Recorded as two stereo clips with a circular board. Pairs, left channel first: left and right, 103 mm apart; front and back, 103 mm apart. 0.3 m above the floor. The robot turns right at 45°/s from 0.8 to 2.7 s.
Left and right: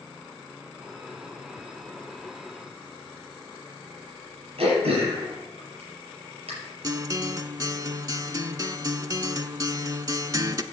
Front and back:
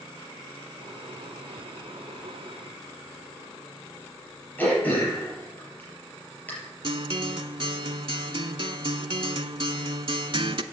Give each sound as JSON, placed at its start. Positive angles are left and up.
{"t": 4.6, "sound": "throat clearing", "azimuth_deg": -75, "distance_m": 5.0}
{"t": 6.8, "sound": "a guitar", "azimuth_deg": -145, "distance_m": 0.5}